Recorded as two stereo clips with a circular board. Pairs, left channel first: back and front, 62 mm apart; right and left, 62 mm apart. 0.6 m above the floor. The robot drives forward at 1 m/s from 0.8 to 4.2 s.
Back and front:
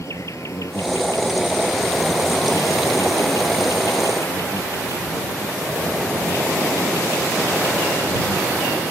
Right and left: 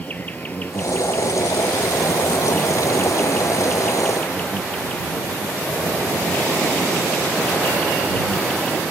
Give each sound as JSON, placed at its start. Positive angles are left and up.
{"t": 0.0, "sound": "an insect", "azimuth_deg": -150}